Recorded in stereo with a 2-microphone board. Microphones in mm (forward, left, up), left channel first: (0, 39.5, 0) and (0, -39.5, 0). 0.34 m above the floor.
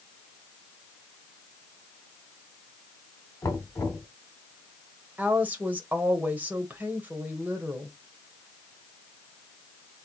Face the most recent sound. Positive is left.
turn(degrees=-20)  # may be behind; listen again after turning